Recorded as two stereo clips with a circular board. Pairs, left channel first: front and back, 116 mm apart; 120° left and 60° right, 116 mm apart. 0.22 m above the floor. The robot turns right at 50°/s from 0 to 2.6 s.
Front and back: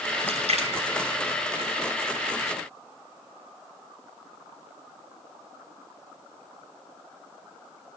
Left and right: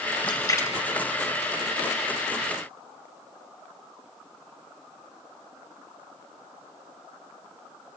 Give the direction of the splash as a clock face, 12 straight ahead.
7 o'clock.